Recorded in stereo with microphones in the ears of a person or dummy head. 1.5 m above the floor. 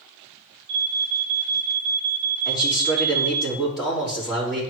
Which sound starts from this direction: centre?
A man speaking, at 2.5 s.